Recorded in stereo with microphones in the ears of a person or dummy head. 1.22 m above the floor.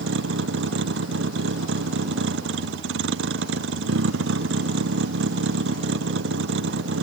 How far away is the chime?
No chime in this recording.